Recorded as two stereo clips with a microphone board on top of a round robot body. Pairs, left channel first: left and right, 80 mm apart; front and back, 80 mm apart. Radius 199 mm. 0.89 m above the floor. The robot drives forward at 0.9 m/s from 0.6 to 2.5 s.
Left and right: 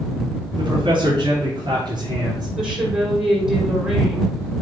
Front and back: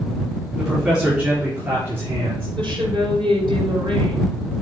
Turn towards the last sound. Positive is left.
turn(degrees=-170)